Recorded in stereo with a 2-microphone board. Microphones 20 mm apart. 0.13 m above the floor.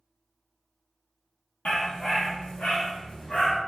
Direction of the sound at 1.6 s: 75° left (ahead or behind).